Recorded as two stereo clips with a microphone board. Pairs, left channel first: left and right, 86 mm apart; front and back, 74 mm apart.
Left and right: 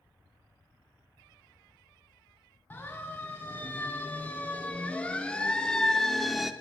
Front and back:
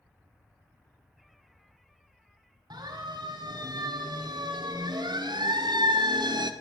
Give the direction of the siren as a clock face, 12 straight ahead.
7 o'clock.